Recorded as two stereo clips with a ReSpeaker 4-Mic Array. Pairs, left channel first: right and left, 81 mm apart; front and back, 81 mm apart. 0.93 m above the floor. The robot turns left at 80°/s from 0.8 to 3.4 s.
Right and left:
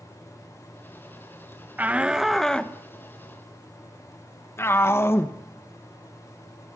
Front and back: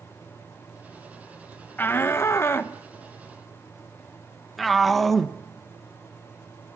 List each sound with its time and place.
1.8 s a shout: 40° left, 0.9 m; by 6.8 s 90° right, 0.9 m